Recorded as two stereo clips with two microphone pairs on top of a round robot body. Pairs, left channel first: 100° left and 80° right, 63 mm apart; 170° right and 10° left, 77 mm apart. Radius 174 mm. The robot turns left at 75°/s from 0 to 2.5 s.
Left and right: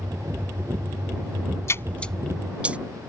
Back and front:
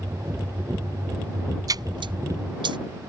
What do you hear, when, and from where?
1.7 s a splash: 55° left; by 2.8 s 5° right